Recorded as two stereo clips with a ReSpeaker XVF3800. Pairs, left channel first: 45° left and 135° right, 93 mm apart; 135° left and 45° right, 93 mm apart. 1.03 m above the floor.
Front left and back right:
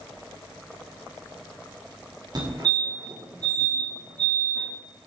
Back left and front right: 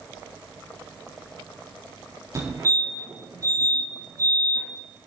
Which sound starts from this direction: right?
A fire alarm, at 2.4 s.